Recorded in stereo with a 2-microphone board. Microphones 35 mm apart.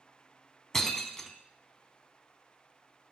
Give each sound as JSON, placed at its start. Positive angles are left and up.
{"t": 0.7, "sound": "breaking glass", "side_deg": 15, "distance_m": 0.7}